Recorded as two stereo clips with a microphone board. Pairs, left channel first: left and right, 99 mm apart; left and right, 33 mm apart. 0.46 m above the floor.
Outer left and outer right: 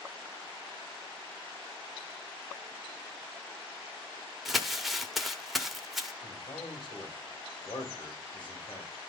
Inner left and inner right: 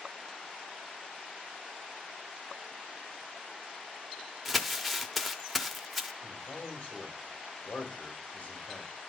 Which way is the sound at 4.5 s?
Centre (ahead or behind).